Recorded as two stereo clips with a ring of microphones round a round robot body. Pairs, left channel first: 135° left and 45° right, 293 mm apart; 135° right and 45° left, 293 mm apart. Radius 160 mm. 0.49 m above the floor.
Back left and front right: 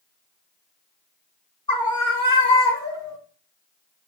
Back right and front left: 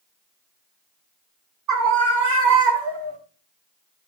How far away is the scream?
About 6 m.